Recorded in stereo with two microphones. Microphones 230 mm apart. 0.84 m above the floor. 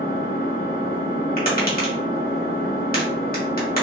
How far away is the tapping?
About 1.4 m.